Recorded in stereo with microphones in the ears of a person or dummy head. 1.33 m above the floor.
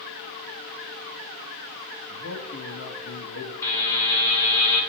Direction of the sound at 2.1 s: 75° left (ahead or behind).